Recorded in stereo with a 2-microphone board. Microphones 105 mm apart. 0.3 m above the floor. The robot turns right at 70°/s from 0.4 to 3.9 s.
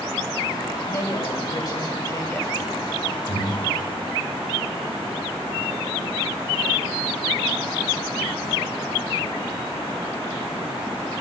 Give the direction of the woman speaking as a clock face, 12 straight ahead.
10 o'clock.